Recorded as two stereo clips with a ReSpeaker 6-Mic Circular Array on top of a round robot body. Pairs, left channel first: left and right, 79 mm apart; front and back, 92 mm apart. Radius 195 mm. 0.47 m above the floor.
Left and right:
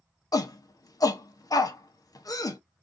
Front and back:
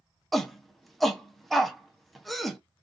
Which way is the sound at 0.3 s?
85° left.